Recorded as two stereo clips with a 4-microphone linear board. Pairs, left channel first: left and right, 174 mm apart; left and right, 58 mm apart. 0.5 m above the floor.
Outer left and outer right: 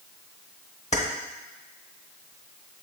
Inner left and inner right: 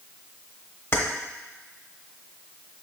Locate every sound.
0.9 s keys jangling: 40° left (ahead or behind), 1.0 m